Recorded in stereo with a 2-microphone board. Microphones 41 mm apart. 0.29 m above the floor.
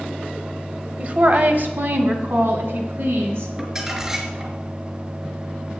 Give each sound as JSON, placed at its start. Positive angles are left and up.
{"t": 1.0, "sound": "a woman speaking", "side_deg": -35, "distance_m": 1.1}
{"t": 3.6, "sound": "crumpling", "side_deg": -15, "distance_m": 2.0}